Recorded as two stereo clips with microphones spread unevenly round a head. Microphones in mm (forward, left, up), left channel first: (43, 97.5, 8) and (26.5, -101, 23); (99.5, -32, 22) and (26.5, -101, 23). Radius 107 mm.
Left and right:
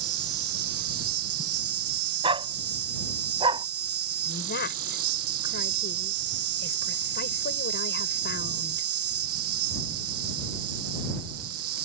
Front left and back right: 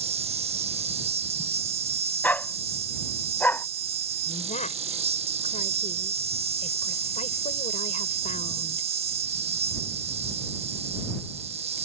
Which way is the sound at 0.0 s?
125° right.